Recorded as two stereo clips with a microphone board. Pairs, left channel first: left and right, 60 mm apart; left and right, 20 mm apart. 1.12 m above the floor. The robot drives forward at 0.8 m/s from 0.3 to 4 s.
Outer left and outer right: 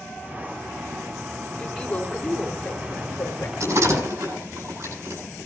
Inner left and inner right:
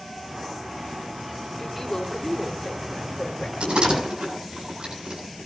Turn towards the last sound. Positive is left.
turn(degrees=-45)  # may be behind; listen again after turning